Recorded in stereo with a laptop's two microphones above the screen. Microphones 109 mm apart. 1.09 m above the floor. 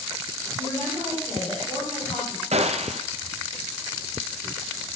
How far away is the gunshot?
About 0.7 m.